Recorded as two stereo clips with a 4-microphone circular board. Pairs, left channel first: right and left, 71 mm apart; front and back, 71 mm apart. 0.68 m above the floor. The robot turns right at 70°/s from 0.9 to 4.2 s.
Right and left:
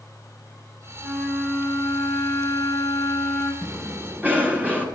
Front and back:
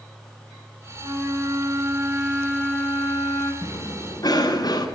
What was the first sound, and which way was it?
A flute, straight behind.